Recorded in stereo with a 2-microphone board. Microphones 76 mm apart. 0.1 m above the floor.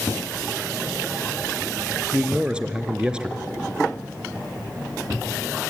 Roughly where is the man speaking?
Centre.